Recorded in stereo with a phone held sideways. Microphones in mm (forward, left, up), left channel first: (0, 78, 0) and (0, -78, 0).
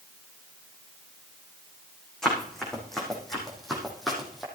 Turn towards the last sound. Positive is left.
turn(degrees=0)  # may be behind; listen again after turning